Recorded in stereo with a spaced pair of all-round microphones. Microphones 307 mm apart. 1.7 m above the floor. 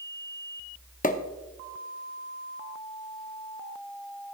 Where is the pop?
25° left (ahead or behind), 0.6 m.